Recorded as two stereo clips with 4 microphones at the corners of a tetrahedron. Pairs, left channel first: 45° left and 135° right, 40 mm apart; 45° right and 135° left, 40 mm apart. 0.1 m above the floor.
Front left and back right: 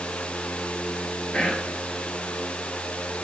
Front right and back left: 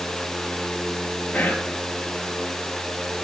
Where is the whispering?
10° right, 2 m.